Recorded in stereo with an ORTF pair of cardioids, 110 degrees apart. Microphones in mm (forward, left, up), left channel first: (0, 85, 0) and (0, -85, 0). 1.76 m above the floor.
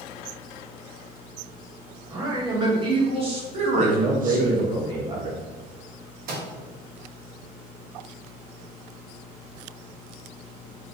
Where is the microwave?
60° right, 1.2 m.